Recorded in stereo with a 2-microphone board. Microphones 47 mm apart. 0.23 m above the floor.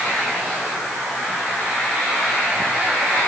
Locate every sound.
Only background noise.